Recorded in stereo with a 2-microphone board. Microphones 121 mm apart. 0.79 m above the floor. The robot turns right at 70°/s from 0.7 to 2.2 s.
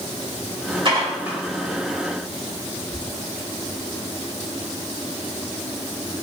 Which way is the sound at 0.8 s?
45° right (ahead or behind).